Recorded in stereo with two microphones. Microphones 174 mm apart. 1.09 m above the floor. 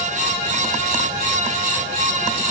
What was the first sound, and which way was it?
Only background noise.